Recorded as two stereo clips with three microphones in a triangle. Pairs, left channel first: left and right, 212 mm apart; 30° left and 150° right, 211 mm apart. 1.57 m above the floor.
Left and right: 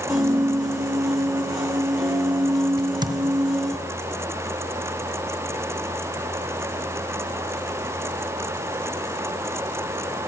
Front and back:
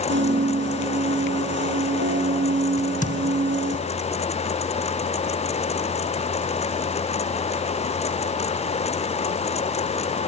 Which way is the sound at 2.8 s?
20° right.